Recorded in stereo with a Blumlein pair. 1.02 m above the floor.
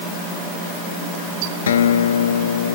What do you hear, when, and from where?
1.7 s a guitar: 65° left